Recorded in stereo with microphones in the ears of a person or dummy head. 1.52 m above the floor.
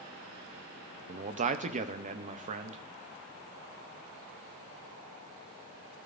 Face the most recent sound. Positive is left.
turn(degrees=-40)  # may be behind; listen again after turning